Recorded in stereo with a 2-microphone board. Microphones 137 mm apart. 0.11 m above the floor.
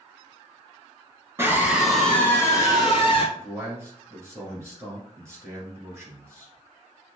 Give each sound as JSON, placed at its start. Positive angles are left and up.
{"t": 1.4, "sound": "a scream", "side_deg": -20, "distance_m": 1.1}
{"t": 3.4, "sound": "a man speaking", "side_deg": -20, "distance_m": 1.7}